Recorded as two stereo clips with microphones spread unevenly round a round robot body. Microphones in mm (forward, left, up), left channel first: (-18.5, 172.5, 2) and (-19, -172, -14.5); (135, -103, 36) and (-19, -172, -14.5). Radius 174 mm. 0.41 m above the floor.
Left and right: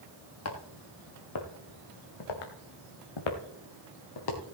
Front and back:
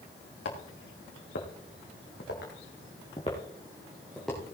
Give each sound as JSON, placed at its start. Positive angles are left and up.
{"t": 0.5, "sound": "footsteps", "azimuth_deg": 40, "distance_m": 3.5}